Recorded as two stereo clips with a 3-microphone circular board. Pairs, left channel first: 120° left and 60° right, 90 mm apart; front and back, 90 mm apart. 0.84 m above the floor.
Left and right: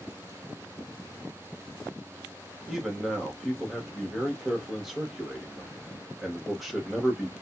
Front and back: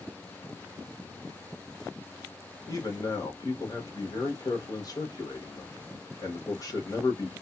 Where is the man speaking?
30° left, 1.3 m.